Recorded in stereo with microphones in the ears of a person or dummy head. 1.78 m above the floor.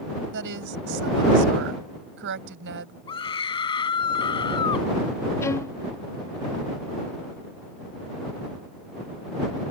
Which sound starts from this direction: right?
A woman speaking, at 0.3 s.